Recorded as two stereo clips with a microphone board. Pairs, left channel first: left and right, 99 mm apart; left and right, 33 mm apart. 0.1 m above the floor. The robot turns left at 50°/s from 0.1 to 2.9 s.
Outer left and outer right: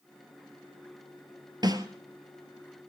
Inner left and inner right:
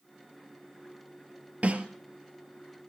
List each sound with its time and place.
1.6 s a snare drum: 45° right (ahead or behind), 1.2 m; by 1.9 s 40° right (ahead or behind), 1.2 m